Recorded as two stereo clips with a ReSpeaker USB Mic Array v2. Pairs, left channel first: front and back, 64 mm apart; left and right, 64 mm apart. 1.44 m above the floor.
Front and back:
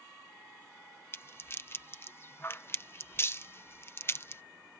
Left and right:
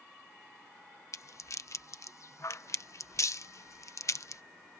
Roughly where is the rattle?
Ahead left.